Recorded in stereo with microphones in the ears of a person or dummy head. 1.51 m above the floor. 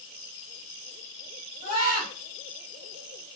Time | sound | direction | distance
1.6 | a scream | 50° left (ahead or behind) | 1.4 m